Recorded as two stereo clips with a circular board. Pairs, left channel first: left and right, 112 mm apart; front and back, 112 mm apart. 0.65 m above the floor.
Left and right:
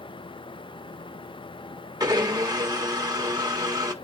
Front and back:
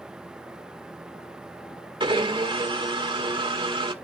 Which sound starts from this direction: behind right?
A blender, at 2.0 s.